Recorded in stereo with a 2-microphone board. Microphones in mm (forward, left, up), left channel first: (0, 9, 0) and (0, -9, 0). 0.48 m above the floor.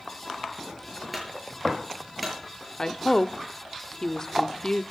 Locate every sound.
1.1 s a clunk: 5° right (ahead or behind), 7 m
2.8 s a woman speaking: 25° left (ahead or behind), 0.7 m